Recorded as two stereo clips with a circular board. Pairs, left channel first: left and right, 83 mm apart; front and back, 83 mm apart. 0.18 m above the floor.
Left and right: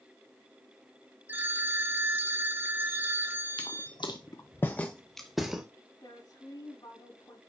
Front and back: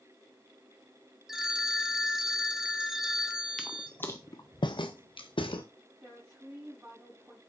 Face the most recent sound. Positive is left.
turn(degrees=120)